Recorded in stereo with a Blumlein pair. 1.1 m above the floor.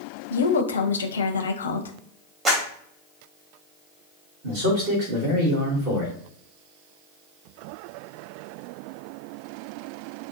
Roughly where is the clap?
Ahead.